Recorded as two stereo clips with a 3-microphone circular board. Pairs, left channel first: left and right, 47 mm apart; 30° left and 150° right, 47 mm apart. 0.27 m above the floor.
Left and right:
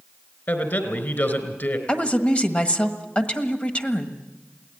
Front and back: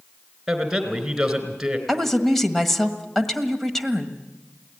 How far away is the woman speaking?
About 1.5 m.